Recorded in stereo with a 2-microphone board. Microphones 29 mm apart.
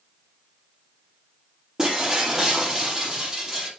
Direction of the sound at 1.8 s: 25° right (ahead or behind).